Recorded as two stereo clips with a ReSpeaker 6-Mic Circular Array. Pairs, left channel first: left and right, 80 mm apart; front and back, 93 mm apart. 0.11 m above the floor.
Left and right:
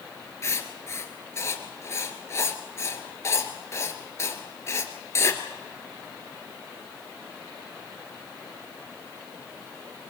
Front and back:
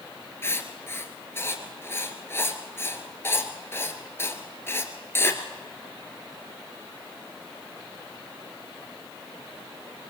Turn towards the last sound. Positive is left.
turn(degrees=55)